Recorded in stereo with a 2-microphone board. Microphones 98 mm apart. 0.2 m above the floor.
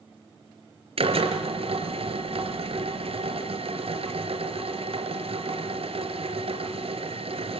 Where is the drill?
65° right (ahead or behind), 3.5 m.